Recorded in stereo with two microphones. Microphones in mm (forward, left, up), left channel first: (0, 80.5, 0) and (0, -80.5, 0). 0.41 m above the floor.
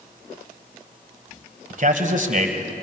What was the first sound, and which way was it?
A man speaking, 55° right (ahead or behind).